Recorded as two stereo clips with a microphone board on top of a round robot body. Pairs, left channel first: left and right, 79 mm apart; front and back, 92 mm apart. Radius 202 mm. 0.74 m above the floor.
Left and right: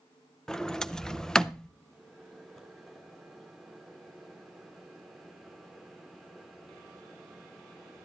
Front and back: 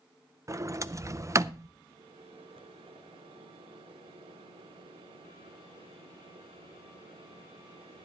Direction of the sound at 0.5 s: 165° left.